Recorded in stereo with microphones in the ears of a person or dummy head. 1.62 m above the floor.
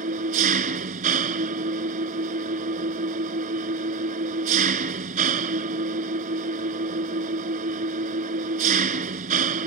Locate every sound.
0.0 s an engine running: 40° right (ahead or behind)